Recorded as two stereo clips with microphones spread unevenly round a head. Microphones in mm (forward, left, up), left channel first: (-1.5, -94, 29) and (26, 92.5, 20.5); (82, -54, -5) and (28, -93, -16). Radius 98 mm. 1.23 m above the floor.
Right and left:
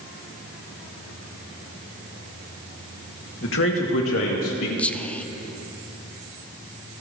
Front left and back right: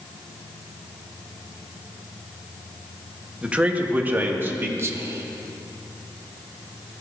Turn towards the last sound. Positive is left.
turn(degrees=175)